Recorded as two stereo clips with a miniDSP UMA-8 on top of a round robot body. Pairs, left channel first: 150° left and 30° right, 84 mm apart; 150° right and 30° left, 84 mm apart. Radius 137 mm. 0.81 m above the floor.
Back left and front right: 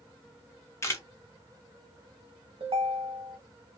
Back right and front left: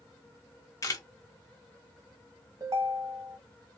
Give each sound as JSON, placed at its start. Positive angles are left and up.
{"t": 0.8, "sound": "a camera shutter", "azimuth_deg": -170, "distance_m": 1.1}
{"t": 2.6, "sound": "a ringtone", "azimuth_deg": -20, "distance_m": 0.8}